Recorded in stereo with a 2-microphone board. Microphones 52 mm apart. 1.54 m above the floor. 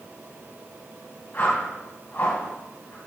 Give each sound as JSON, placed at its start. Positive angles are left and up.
{"t": 1.3, "sound": "a whoosh", "side_deg": 50, "distance_m": 3.5}